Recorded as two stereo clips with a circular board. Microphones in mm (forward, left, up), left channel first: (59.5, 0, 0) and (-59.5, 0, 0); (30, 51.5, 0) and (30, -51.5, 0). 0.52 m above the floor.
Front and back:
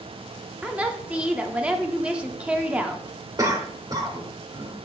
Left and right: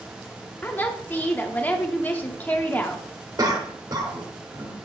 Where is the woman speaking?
120° left, 0.7 m.